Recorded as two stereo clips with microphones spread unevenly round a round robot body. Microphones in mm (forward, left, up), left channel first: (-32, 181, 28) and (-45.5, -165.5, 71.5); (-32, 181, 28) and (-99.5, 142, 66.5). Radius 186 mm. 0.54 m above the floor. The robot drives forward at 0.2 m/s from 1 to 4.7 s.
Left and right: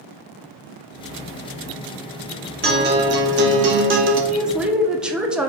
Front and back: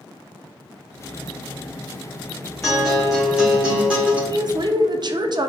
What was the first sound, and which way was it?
A guitar, 30° right.